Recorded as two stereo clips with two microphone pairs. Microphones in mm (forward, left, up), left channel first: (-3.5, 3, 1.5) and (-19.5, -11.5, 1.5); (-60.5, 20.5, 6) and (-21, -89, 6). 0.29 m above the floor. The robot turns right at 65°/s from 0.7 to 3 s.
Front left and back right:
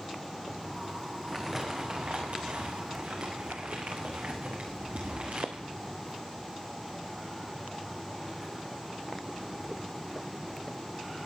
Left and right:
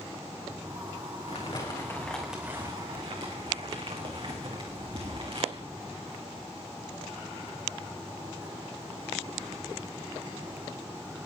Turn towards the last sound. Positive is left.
turn(degrees=-110)